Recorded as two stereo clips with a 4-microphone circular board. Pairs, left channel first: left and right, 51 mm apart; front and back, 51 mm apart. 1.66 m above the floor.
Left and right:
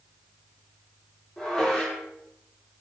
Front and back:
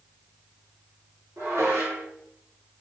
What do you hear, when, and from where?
1.4 s dishes clattering: 175° left, 2.5 m